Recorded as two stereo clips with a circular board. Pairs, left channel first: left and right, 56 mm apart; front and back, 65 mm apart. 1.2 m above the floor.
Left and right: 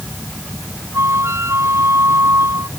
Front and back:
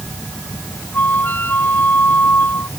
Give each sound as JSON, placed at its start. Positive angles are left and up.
{"t": 0.9, "sound": "a flute", "azimuth_deg": -55}